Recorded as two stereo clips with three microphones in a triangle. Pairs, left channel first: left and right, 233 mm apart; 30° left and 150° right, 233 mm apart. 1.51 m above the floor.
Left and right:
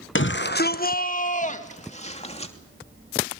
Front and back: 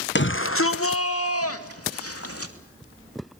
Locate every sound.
0.1 s a shout: 65° left, 0.8 m; by 2.5 s 25° left, 3 m